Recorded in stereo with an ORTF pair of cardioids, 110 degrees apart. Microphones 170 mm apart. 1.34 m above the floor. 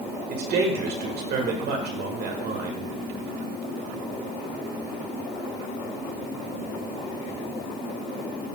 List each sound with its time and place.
0.3 s a man speaking: 65° right, 1.8 m